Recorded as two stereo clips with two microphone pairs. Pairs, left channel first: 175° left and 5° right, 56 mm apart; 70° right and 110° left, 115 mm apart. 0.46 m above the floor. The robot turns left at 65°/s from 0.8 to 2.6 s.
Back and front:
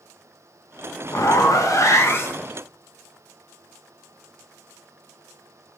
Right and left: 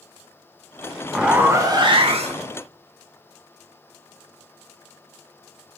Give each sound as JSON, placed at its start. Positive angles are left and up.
{"t": 1.1, "sound": "a zipper", "azimuth_deg": -155, "distance_m": 0.6}